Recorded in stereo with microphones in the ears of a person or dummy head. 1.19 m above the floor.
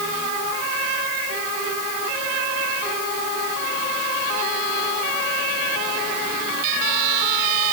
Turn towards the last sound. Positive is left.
No sound to turn to.